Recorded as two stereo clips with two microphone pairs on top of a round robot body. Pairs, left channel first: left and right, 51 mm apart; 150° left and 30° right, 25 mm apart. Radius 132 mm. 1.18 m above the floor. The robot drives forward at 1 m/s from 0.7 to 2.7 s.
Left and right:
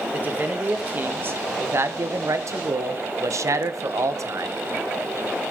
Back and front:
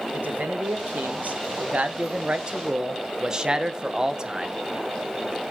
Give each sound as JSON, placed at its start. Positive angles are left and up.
{"t": 0.1, "sound": "a man speaking", "azimuth_deg": -35, "distance_m": 2.5}